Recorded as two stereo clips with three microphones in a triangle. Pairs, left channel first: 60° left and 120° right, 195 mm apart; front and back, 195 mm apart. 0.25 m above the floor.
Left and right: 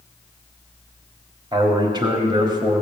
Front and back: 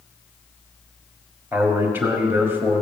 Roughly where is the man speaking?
Behind right.